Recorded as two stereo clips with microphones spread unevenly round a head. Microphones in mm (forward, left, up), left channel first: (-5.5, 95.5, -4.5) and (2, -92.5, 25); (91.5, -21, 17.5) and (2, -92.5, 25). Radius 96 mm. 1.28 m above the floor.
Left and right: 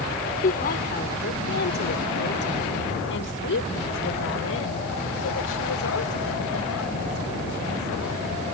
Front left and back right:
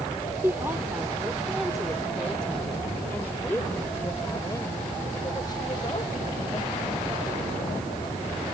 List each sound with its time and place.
0.4 s a woman speaking: 140° left; by 8.4 s 100° left